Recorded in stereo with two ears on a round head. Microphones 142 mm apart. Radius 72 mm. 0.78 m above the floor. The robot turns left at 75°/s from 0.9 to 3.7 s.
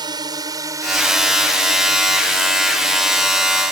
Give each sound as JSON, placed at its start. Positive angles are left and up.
{"t": 0.0, "sound": "a drone", "side_deg": -25}